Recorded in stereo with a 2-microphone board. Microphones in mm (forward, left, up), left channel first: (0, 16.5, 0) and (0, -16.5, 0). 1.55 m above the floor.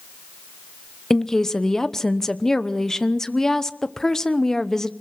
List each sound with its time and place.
1.1 s a woman speaking: 15° left (ahead or behind), 0.9 m